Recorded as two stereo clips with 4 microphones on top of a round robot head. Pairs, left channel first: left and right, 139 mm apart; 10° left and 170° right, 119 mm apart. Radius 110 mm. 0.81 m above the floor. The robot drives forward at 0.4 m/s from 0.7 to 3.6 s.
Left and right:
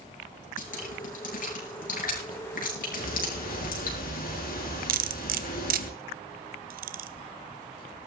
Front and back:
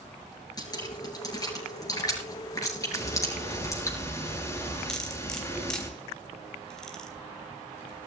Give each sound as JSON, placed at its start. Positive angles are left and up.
{"t": 0.6, "sound": "dripping", "azimuth_deg": 65, "distance_m": 7.5}
{"t": 2.9, "sound": "ticking", "azimuth_deg": 75, "distance_m": 7.5}
{"t": 4.9, "sound": "cutlery clinking", "azimuth_deg": -75, "distance_m": 1.2}